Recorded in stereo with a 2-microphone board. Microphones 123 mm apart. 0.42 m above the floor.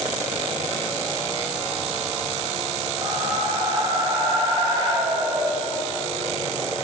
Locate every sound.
3.0 s a whoosh: 35° right (ahead or behind), 1.5 m